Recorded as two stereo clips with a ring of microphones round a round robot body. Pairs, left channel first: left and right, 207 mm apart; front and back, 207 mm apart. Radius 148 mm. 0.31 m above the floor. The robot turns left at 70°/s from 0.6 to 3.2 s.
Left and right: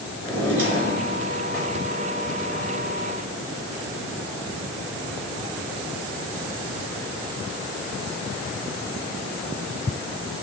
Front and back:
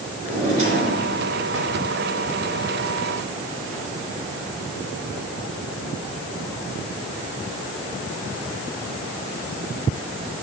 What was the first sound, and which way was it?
A drawer, 115° right.